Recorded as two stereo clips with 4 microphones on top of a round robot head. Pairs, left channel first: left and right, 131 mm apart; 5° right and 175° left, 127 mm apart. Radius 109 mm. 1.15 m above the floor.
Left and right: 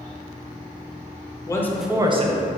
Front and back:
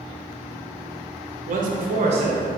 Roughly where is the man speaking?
Behind left.